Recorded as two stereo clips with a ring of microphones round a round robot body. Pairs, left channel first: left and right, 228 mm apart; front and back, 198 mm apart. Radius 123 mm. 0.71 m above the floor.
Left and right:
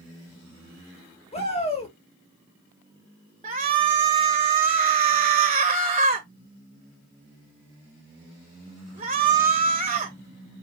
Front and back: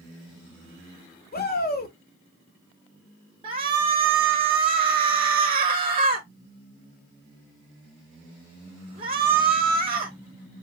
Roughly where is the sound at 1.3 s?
Ahead left.